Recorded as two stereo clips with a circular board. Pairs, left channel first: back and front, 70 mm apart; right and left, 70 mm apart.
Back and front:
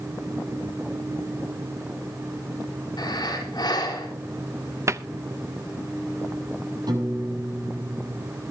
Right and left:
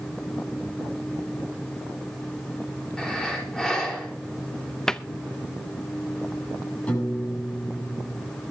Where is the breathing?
170° right, 4.5 m.